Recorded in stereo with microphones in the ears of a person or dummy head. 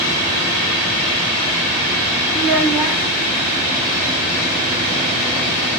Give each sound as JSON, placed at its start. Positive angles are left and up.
{"t": 2.3, "sound": "a child speaking", "side_deg": -5, "distance_m": 1.4}